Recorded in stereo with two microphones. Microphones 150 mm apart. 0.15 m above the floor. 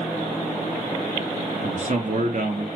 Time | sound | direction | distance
1.6 | a man speaking | 50° right (ahead or behind) | 2.5 m